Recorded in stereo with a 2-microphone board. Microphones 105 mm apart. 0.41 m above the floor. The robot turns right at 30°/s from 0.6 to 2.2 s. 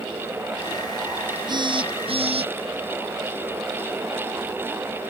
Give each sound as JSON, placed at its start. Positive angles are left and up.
{"t": 1.5, "sound": "a phone buzzing", "side_deg": -45}